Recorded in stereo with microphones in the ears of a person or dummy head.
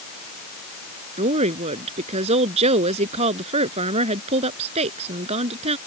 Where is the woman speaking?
35° right (ahead or behind).